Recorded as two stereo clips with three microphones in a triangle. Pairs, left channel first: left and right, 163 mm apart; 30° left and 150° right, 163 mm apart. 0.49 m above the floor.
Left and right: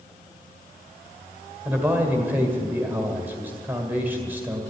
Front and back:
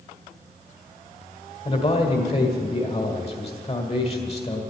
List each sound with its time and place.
1.6 s a man speaking: 15° right, 1.7 m